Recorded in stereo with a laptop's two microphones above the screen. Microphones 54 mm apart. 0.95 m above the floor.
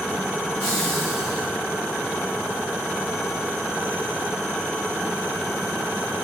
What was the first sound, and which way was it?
Laughter, 20° left (ahead or behind).